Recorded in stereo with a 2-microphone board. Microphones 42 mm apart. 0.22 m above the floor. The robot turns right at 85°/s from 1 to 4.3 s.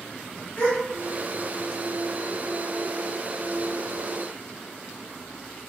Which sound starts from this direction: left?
A gasp, at 0.6 s.